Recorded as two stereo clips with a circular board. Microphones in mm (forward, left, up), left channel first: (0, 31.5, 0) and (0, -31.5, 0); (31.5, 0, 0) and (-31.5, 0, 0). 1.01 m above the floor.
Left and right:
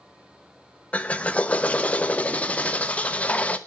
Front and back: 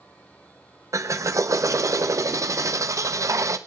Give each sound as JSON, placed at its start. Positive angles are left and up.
{"t": 0.9, "sound": "a drill", "azimuth_deg": 155, "distance_m": 0.9}